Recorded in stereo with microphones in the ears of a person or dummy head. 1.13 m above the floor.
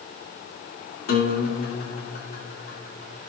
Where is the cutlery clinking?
I don't hear cutlery clinking.